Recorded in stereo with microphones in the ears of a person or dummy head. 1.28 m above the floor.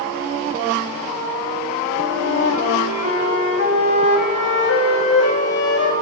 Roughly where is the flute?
Left.